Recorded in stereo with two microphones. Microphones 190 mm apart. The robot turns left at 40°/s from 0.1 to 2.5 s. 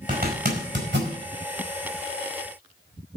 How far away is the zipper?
About 4.5 m.